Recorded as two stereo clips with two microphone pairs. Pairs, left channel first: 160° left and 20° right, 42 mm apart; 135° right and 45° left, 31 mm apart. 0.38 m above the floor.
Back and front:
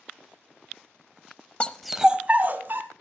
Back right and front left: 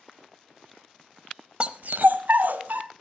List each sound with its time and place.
1.6 s a dog barking: 100° left, 0.7 m; by 2.8 s 15° left, 1.7 m